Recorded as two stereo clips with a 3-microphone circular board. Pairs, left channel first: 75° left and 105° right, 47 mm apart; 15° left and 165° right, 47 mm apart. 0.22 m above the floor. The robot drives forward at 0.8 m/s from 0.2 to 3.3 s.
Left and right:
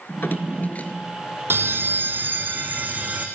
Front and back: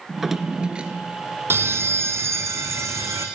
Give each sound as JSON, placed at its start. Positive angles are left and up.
{"t": 0.1, "sound": "a drawer", "azimuth_deg": 110, "distance_m": 1.4}
{"t": 1.5, "sound": "a bell", "azimuth_deg": -135, "distance_m": 1.2}